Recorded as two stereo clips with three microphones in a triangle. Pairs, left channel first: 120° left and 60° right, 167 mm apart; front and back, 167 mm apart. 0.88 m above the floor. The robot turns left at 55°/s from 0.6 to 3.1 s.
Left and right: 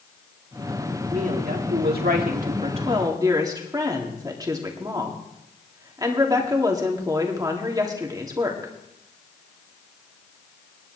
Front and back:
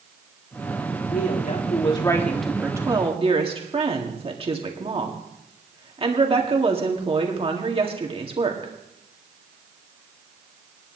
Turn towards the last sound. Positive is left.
turn(degrees=-125)